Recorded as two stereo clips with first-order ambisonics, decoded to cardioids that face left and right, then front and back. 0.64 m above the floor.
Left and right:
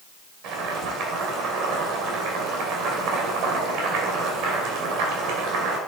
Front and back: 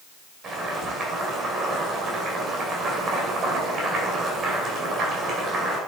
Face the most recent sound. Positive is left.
turn(degrees=-120)